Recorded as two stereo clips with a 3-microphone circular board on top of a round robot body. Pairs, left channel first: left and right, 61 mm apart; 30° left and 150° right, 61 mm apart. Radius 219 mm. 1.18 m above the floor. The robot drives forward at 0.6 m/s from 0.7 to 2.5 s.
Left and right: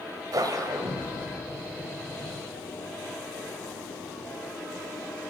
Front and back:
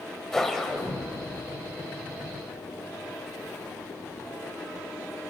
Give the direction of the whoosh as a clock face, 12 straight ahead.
2 o'clock.